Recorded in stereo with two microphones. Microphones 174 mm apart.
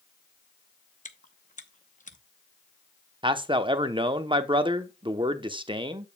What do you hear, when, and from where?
1.1 s chewing: 45° left (ahead or behind), 0.8 m
3.2 s a man speaking: 30° right (ahead or behind), 0.8 m